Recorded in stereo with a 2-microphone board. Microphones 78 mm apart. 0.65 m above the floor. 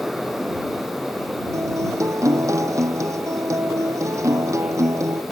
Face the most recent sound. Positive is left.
turn(degrees=-40)  # may be behind; listen again after turning